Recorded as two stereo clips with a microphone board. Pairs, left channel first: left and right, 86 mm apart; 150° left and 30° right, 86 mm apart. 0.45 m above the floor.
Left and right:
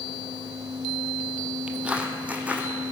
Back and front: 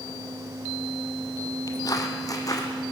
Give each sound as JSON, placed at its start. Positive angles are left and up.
{"t": 1.7, "sound": "footsteps", "azimuth_deg": -165, "distance_m": 0.9}